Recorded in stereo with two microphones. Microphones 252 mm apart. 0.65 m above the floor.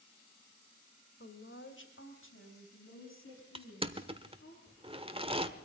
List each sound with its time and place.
1.2 s a woman speaking: 55° left (ahead or behind), 2 m; by 4.5 s 60° left (ahead or behind), 7.5 m
3.5 s crushing: 25° right (ahead or behind), 1.1 m